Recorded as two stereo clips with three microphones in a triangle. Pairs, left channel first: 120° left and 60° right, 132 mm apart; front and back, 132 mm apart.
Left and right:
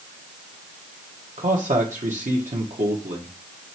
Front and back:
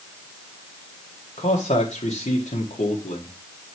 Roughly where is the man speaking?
Ahead right.